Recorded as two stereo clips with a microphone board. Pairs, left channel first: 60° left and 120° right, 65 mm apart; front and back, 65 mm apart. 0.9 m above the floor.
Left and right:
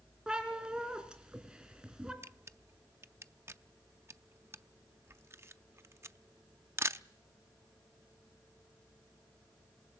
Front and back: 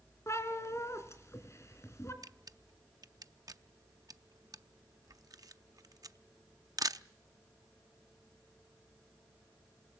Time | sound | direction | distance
0.3 | a cat meowing | 45° right | 2.5 m
2.2 | a camera shutter | 165° right | 0.5 m